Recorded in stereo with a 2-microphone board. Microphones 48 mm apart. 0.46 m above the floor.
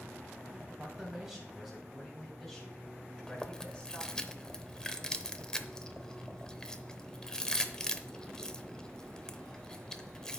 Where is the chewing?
15° left (ahead or behind), 0.7 m.